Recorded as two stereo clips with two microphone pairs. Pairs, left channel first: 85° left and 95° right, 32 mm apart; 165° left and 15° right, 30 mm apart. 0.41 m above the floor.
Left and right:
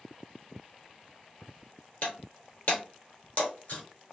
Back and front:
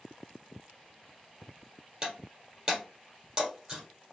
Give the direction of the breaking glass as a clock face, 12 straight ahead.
10 o'clock.